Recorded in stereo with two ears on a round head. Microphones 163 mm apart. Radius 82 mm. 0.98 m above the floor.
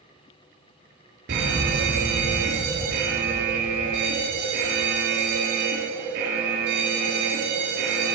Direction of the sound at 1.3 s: 60° right (ahead or behind).